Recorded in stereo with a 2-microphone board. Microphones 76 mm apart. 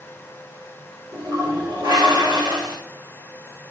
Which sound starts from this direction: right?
A toilet flushing, at 1.1 s.